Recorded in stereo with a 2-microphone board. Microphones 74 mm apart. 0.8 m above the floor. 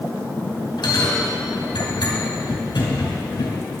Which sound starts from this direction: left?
A bell, at 0.8 s.